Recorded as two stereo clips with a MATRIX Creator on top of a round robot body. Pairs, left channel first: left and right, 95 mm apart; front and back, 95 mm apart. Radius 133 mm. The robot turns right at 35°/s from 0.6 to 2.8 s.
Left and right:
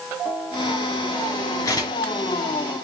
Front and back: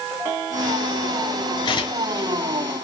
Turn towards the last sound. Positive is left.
turn(degrees=75)